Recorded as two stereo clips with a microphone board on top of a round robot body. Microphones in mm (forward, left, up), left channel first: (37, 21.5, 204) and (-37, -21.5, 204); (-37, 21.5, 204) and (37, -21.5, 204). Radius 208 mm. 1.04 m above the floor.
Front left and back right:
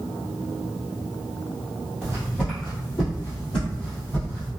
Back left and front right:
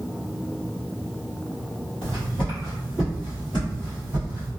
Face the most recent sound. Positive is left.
turn(degrees=-5)